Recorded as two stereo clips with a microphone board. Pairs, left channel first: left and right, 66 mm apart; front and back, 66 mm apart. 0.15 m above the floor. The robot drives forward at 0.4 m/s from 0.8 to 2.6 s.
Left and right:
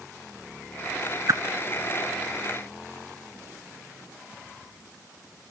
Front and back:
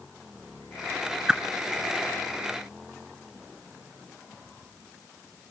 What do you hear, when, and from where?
1.3 s a whoosh: 100° right, 1.3 m